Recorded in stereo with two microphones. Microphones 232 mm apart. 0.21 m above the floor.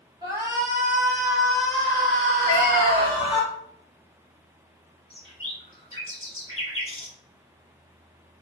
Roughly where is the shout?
Centre.